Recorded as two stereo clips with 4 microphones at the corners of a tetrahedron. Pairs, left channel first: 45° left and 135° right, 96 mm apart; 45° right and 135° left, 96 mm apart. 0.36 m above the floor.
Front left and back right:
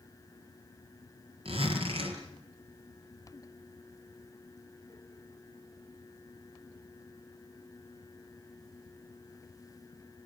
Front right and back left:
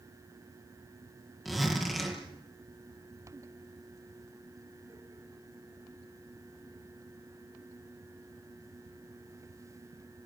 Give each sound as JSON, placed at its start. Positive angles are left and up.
{"t": 1.4, "sound": "a zipper", "azimuth_deg": -135, "distance_m": 6.0}